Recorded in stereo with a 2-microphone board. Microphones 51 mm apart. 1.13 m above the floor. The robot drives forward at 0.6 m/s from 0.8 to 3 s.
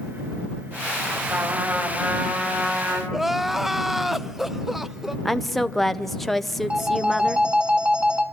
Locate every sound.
1.3 s a trumpet: 45° right (ahead or behind), 3 m; by 3.0 s 35° right (ahead or behind), 3.5 m
3.1 s crying: 5° right (ahead or behind), 0.5 m
5.2 s a woman speaking: 5° left (ahead or behind), 0.6 m
6.7 s a phone ringing: 20° right (ahead or behind), 1.4 m